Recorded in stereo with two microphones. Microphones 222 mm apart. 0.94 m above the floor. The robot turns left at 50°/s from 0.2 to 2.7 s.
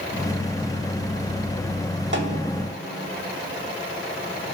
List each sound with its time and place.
2.1 s a snare drum: 55° right (ahead or behind), 1.1 m; by 2.6 s 75° right (ahead or behind), 1.1 m